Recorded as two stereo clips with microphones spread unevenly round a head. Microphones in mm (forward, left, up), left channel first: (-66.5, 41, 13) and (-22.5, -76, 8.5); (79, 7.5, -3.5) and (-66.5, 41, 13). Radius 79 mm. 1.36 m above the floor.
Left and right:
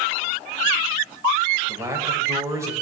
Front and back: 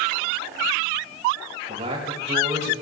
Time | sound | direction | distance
1.7 | a man speaking | 135° right | 5.5 m